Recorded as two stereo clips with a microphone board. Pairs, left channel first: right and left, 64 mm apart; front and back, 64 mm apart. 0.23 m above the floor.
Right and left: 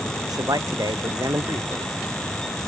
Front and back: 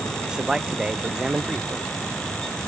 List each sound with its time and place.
0.2 s a man speaking: 100° left